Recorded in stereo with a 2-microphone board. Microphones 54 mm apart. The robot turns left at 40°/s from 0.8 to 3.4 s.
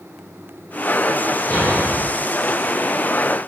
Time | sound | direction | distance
1.5 | a thud | 45° left (ahead or behind) | 3 m